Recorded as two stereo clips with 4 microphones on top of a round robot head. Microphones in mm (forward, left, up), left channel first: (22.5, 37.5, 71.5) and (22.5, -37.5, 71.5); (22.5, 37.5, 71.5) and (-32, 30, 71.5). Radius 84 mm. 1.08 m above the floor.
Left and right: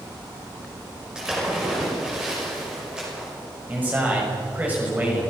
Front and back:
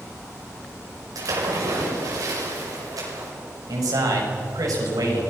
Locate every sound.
1.1 s a splash: 170° right, 5.5 m
3.7 s a man speaking: 160° right, 6 m